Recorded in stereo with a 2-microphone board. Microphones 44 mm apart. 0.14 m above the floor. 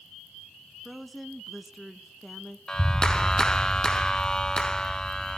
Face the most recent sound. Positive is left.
turn(degrees=15)  # may be behind; listen again after turning